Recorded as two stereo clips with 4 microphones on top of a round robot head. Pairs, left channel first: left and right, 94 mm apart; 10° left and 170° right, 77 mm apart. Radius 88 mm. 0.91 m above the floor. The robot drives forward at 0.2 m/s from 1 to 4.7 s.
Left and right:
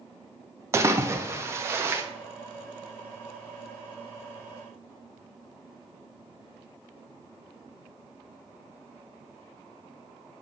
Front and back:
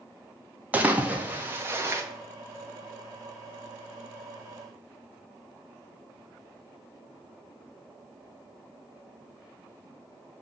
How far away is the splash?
About 0.8 m.